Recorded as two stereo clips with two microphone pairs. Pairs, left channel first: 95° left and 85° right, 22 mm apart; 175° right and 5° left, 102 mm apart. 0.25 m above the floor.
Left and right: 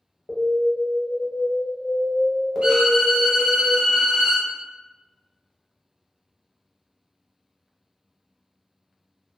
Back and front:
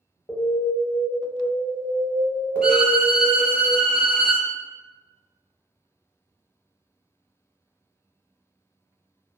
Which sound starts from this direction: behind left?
An alarm, at 0.3 s.